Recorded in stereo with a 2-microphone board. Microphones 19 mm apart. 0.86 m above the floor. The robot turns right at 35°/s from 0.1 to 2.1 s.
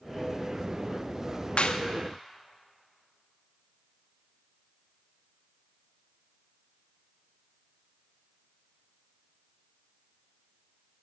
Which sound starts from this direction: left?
A clap, at 1.6 s.